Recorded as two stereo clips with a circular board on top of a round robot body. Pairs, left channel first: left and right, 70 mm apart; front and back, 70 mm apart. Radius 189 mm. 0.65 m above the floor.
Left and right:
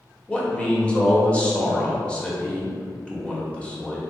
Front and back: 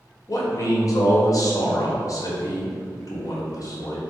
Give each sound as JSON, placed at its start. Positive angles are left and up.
{"t": 0.3, "sound": "a man speaking", "azimuth_deg": 20, "distance_m": 1.2}